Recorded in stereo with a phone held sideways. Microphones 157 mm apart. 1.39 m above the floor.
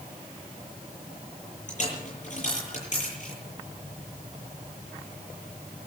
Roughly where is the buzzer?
No buzzer in this recording.